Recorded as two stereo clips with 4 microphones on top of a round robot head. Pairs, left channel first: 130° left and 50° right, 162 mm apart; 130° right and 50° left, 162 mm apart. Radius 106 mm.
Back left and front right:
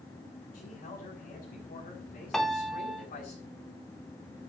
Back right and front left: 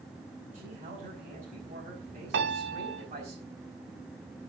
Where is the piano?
45° left, 1.7 m.